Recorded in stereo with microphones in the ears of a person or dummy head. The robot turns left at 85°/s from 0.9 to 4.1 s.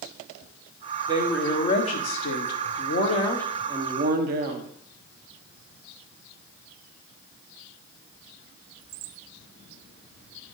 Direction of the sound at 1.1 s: 160° right.